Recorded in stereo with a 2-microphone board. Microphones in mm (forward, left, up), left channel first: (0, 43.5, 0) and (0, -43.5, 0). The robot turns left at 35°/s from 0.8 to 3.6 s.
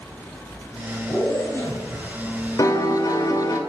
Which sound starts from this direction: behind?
A zipper, at 1.1 s.